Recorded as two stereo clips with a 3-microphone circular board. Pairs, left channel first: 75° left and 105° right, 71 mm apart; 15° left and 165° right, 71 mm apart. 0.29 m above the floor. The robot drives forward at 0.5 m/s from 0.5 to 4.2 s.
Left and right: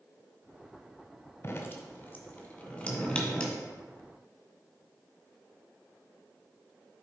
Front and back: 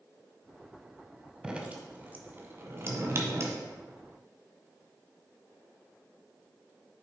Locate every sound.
1.4 s dripping: 120° left, 1.0 m; by 3.6 s 155° left, 1.7 m